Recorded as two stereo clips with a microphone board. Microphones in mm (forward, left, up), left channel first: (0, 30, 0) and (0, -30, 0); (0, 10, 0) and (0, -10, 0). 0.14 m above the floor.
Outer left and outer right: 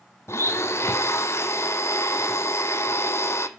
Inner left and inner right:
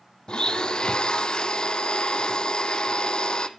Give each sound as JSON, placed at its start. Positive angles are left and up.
{"t": 0.3, "sound": "a blender", "side_deg": 45, "distance_m": 0.9}